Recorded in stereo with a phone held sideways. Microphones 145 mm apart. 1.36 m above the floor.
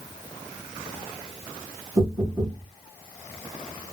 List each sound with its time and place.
2.0 s knocking: 40° right (ahead or behind), 3 m